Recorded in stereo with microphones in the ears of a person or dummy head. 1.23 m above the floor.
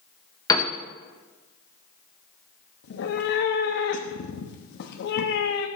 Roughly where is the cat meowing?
Left.